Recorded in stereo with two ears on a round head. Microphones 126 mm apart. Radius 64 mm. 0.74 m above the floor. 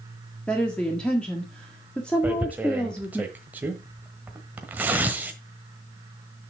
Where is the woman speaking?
10° left (ahead or behind), 1.5 m.